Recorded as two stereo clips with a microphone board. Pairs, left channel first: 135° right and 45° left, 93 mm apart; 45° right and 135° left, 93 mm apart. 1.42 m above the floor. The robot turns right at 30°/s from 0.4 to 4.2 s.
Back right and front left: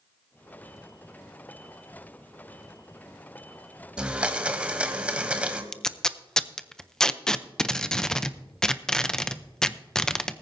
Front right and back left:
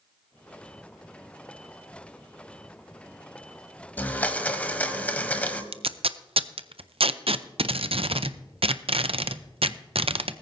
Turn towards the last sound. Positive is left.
turn(degrees=140)